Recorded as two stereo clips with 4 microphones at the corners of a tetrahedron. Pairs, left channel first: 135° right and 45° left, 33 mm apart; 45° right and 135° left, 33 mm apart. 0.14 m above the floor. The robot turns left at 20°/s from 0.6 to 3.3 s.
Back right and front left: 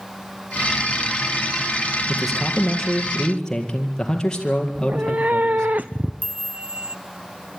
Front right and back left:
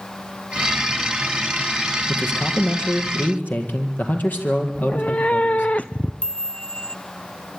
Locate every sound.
2.1 s a man speaking: 40° right, 4 m; by 5.7 s 65° right, 4 m
4.8 s a cat meowing: 5° left, 1.0 m
6.2 s a chime: 10° left, 0.6 m